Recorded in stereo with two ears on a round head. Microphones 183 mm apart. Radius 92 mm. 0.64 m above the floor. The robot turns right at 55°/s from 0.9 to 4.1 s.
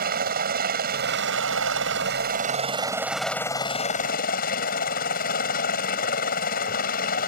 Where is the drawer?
No drawer in this recording.